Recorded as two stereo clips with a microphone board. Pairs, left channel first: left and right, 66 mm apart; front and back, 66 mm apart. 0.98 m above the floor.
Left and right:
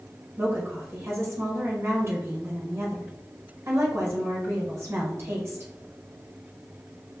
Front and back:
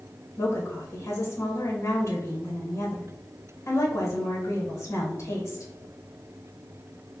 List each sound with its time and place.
0.4 s a woman speaking: 45° right, 1.0 m